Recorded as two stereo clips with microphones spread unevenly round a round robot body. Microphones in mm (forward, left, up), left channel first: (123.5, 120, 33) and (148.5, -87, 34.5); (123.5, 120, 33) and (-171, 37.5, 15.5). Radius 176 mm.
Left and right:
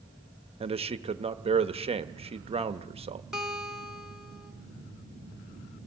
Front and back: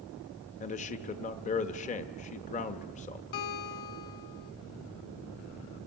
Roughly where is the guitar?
Ahead.